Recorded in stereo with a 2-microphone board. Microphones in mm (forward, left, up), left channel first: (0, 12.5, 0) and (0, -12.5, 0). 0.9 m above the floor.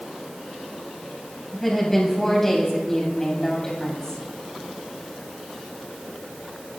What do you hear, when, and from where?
1.5 s a woman speaking: 10° left (ahead or behind), 6.5 m; by 4.2 s 25° left (ahead or behind), 6.5 m